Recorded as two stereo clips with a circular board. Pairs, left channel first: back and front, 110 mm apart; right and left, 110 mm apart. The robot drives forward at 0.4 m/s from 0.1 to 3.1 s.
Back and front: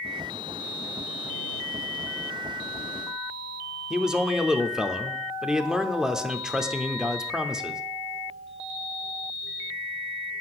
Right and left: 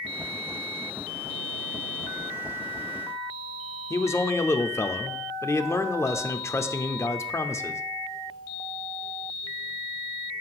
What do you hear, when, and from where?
3.9 s a man speaking: 80° right, 0.7 m